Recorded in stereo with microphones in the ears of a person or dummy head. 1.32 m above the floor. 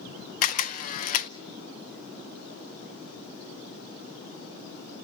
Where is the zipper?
I don't hear a zipper.